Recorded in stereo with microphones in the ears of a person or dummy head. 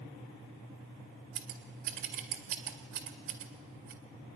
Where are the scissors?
60° right (ahead or behind), 2 m.